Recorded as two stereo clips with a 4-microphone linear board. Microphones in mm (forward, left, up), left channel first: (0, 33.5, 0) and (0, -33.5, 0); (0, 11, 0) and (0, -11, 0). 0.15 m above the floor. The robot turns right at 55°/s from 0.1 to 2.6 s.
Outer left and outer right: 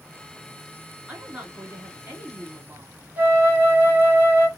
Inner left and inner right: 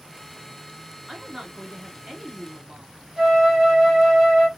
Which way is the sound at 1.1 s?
10° right (ahead or behind).